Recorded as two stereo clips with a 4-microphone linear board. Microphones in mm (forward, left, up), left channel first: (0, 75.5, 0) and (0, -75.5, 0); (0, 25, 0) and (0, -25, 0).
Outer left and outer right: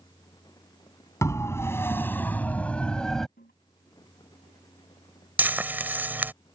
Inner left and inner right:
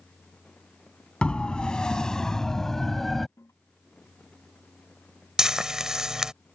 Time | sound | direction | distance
1.2 | a siren | 20° left (ahead or behind) | ?
3.4 | a toilet flushing | 80° left | ?
5.4 | frying | 10° right (ahead or behind) | ?